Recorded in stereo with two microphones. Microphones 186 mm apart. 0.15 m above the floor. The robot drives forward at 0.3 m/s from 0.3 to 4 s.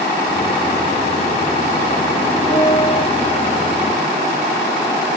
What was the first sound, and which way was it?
A piano, 15° left (ahead or behind).